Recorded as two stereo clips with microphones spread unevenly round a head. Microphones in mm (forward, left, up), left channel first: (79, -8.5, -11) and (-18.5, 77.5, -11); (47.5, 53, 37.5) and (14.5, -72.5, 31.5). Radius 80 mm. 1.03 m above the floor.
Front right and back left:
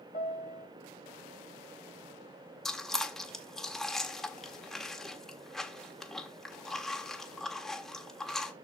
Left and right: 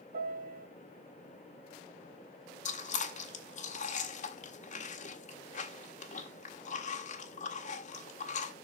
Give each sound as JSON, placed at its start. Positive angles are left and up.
{"t": 0.1, "sound": "a piano", "azimuth_deg": -90, "distance_m": 1.2}
{"t": 2.6, "sound": "chewing", "azimuth_deg": 45, "distance_m": 1.6}